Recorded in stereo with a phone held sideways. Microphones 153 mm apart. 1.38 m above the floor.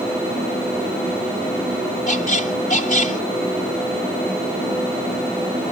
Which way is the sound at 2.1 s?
55° left (ahead or behind).